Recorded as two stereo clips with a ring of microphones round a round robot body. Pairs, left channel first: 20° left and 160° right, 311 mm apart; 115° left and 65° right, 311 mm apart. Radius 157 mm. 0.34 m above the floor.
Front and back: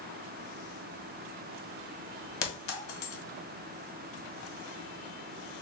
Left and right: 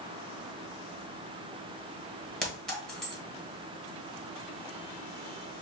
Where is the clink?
25° left, 1.7 m.